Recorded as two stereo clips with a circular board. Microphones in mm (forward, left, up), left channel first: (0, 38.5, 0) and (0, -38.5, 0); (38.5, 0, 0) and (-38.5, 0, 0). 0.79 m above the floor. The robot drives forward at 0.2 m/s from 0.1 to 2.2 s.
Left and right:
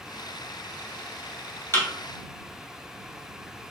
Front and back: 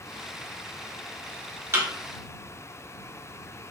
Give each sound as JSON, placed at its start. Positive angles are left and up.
{"t": 1.7, "sound": "a thud", "azimuth_deg": 135, "distance_m": 1.1}